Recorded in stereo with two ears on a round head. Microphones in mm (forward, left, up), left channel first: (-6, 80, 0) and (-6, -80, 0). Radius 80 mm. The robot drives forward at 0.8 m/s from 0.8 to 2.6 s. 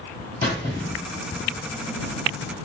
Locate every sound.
0.4 s a squeak: 15° left (ahead or behind), 2.5 m